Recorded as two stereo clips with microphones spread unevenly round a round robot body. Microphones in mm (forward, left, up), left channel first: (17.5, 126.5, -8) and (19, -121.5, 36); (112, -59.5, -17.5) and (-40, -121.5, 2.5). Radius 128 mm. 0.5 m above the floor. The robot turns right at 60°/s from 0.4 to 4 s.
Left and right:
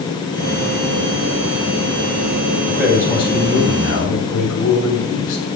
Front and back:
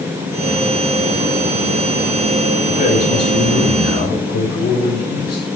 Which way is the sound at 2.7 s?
10° right.